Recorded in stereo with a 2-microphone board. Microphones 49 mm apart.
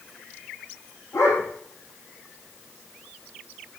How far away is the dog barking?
About 6.5 m.